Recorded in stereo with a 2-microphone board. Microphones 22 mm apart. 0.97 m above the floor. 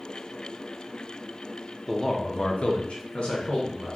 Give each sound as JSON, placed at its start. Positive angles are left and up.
{"t": 1.9, "sound": "a man speaking", "side_deg": 5, "distance_m": 0.5}